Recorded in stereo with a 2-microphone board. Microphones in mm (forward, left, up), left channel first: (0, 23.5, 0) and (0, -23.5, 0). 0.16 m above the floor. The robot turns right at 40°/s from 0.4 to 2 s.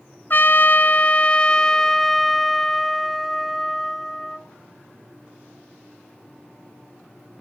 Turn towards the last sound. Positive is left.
turn(degrees=170)